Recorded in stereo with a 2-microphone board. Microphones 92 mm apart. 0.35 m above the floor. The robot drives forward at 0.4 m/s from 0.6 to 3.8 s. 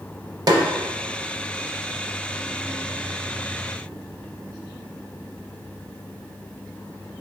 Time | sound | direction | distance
0.5 | a snare drum | 50° right (ahead or behind) | 0.6 m